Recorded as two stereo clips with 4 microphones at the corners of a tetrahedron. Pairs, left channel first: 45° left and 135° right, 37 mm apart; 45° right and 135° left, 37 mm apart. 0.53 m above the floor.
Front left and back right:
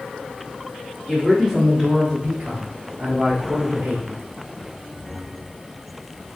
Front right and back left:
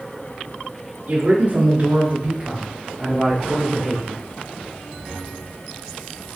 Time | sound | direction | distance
1.1 | a man speaking | 125° left | 1.5 m